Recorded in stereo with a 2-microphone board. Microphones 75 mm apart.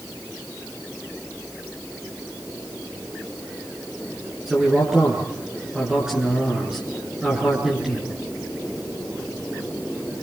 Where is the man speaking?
5° right (ahead or behind), 8 m.